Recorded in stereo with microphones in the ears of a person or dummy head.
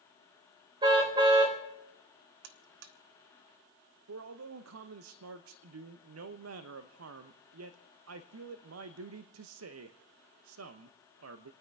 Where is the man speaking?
75° right (ahead or behind), 0.8 m.